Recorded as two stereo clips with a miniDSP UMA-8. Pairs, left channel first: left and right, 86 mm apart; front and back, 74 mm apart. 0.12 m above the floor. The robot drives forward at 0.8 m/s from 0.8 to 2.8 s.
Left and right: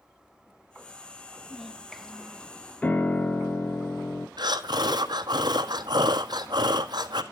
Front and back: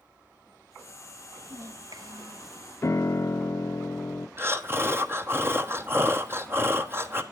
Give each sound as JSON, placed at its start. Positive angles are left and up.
{"t": 1.4, "sound": "a child speaking", "azimuth_deg": 175, "distance_m": 0.9}
{"t": 2.8, "sound": "a piano", "azimuth_deg": 25, "distance_m": 0.6}
{"t": 4.4, "sound": "breathing", "azimuth_deg": -125, "distance_m": 1.0}